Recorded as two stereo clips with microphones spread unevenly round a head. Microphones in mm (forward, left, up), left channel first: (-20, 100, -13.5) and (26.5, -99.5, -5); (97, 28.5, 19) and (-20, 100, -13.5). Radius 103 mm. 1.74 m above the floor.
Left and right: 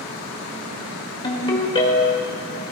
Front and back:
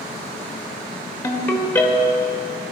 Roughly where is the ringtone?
Ahead left.